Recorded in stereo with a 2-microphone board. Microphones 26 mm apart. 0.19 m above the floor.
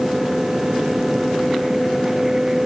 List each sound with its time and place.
Only background noise.